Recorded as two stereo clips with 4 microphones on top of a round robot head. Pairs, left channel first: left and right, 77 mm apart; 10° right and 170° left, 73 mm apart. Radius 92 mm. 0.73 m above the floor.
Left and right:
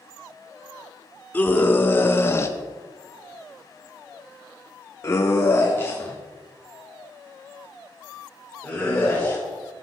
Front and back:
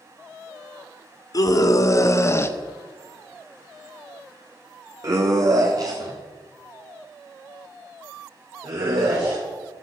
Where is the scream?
20° left, 2 m; by 9.4 s 165° left, 5 m.